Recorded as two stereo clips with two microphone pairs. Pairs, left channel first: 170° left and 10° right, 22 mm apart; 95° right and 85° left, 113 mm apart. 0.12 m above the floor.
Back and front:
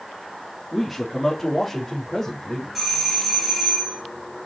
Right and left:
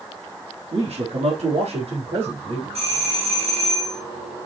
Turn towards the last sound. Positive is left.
turn(degrees=80)